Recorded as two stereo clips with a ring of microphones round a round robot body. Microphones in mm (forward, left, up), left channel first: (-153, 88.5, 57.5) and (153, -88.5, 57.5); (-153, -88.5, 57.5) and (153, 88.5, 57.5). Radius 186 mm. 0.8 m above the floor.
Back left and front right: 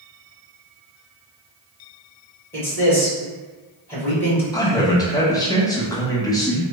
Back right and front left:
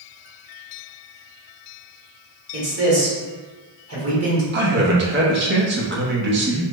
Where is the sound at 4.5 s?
75° left, 0.7 m.